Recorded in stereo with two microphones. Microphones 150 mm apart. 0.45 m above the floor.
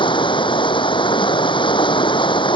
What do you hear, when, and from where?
0.0 s running water: 30° left (ahead or behind)